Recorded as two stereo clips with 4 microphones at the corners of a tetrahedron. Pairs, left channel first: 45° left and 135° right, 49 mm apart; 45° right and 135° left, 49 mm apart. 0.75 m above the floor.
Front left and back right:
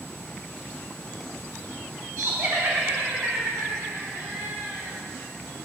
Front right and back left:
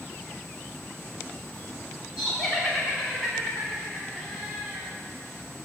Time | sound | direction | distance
2.2 | laughter | 140° right | 3 m